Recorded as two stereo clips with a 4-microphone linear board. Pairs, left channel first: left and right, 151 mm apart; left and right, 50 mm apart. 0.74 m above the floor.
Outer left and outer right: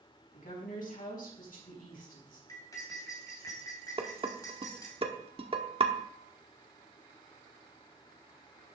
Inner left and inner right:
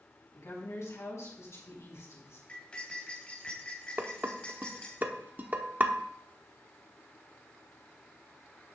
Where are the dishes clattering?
40° right (ahead or behind), 1.1 m.